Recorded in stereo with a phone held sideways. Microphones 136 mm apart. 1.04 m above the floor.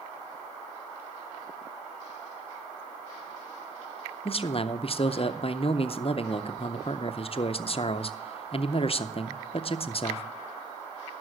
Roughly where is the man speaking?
Left.